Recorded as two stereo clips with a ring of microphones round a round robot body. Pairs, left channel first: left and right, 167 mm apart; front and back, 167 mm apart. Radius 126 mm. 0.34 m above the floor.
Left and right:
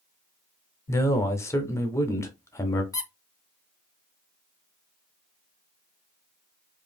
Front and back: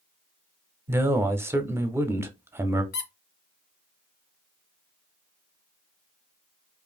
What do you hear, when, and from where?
0.9 s a man speaking: 130° left, 0.8 m
2.9 s a squeak: 20° left, 1.0 m